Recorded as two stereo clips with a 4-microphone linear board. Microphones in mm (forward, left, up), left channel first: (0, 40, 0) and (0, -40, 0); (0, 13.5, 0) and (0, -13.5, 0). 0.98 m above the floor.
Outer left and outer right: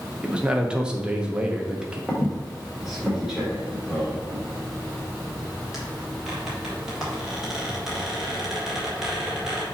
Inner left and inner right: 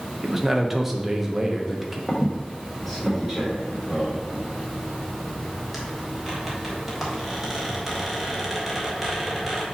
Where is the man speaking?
10° right (ahead or behind), 1.0 m.